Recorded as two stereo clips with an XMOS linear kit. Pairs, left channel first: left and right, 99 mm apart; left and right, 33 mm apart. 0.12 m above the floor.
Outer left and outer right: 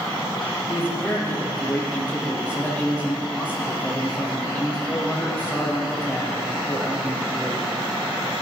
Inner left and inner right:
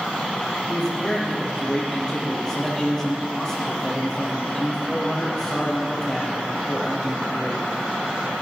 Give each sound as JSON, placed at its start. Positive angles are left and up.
{"t": 0.7, "sound": "a man speaking", "side_deg": 20, "distance_m": 4.0}